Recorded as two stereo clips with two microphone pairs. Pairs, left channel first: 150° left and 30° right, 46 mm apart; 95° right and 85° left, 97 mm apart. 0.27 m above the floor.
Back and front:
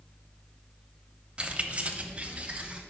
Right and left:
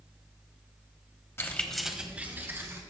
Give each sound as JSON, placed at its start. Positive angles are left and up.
{"t": 1.4, "sound": "keys jangling", "azimuth_deg": -60, "distance_m": 0.8}